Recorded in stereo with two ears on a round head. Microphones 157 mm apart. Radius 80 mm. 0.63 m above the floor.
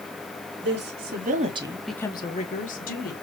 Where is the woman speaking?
65° right (ahead or behind), 2 m; by 3.1 s 55° left (ahead or behind), 2.5 m.